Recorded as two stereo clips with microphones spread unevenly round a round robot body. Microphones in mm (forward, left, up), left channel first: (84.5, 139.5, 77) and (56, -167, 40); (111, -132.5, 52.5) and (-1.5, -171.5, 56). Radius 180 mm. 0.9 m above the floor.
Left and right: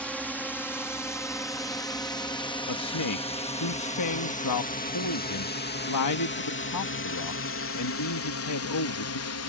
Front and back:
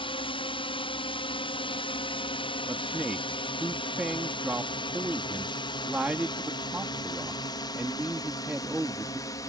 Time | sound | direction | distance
0.0 | a drone | 5° right | ?
2.7 | a man speaking | 115° left | ?